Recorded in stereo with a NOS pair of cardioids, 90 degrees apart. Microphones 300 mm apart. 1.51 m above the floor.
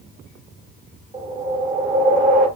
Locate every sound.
1.1 s a whoosh: 25° right, 5.5 m